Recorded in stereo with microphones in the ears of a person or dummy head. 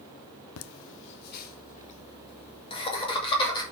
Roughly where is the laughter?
Left.